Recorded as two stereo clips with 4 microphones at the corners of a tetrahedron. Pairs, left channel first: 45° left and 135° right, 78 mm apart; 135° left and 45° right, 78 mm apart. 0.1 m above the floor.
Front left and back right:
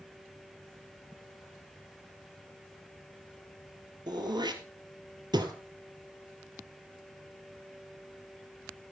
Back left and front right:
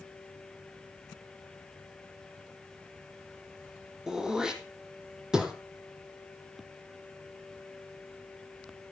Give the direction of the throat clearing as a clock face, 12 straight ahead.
4 o'clock.